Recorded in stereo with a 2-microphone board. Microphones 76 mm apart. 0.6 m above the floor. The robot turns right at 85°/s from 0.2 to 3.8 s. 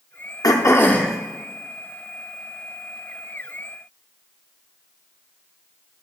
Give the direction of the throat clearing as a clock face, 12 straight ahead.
8 o'clock.